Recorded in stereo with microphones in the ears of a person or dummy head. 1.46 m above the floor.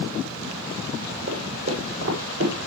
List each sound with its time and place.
1.3 s footsteps: 75° right (ahead or behind), 7 m; by 2.5 s 80° right, 7.5 m